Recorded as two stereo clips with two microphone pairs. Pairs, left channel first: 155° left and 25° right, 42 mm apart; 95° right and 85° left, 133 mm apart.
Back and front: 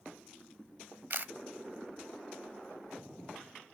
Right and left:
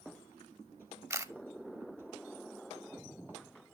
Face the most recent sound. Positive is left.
turn(degrees=10)